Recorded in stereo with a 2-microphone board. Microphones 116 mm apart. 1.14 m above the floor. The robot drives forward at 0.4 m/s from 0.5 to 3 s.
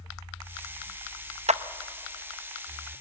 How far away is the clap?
About 0.6 m.